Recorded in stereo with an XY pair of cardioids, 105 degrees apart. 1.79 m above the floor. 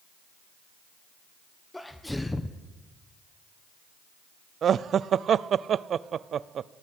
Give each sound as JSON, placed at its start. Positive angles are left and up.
{"t": 1.7, "sound": "a sneeze", "azimuth_deg": 10, "distance_m": 1.2}
{"t": 4.6, "sound": "laughter", "azimuth_deg": -55, "distance_m": 0.6}